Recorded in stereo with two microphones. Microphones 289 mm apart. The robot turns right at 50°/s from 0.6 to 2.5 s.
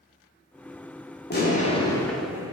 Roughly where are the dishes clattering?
No dishes clattering in this recording.